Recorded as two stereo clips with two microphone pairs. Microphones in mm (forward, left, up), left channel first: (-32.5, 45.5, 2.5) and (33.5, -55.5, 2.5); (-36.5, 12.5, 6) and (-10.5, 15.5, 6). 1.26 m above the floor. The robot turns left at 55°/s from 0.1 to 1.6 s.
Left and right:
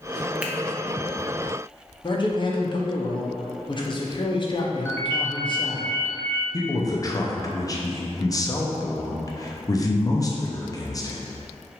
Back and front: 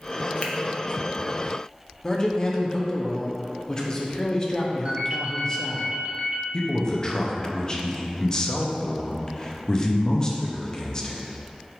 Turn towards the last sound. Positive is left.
turn(degrees=155)